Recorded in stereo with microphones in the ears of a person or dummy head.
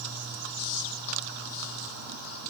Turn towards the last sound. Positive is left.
No sound to turn to.